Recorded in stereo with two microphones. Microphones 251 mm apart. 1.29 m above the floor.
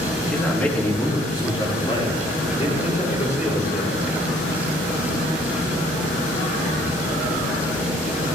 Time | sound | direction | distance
0.2 | a man speaking | centre (ahead or behind) | 3 m